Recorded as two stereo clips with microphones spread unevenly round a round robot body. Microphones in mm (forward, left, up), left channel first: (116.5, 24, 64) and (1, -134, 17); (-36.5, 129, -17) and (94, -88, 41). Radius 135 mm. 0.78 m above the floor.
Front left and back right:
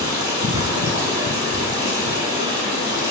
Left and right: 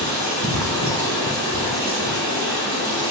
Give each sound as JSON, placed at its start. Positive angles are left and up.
{"t": 0.0, "sound": "running water", "azimuth_deg": -50, "distance_m": 1.9}